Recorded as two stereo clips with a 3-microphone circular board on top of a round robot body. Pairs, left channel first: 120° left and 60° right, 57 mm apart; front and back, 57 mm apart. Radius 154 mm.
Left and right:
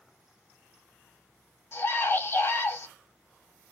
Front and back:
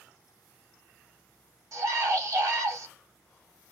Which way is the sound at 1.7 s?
160° left.